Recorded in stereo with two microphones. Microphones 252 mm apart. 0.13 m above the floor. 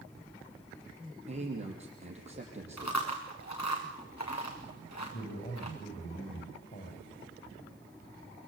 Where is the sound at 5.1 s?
45° left (ahead or behind), 9 m.